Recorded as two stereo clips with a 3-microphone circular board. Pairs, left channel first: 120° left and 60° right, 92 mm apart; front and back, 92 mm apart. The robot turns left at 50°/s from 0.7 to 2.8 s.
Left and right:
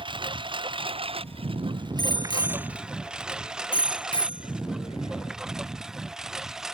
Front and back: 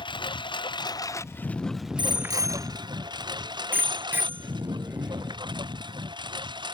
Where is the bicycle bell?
155° left; by 5.4 s 110° left.